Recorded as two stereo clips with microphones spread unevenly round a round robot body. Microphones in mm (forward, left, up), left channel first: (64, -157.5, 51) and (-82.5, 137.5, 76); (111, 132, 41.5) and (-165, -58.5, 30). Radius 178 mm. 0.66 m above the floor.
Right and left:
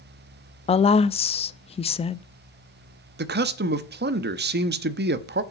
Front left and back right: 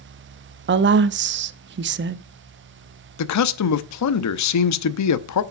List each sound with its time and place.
0.7 s a woman speaking: 120° right, 0.6 m
3.2 s a man speaking: 60° left, 0.9 m